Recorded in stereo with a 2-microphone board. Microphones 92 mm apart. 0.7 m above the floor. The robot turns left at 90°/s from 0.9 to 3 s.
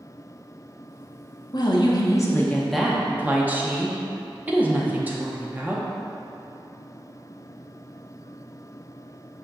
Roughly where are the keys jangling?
I don't hear keys jangling.